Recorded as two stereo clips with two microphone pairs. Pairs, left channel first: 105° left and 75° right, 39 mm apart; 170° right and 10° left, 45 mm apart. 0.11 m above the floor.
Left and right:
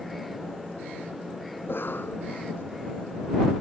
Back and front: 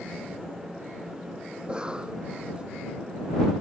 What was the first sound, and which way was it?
A cough, 80° left.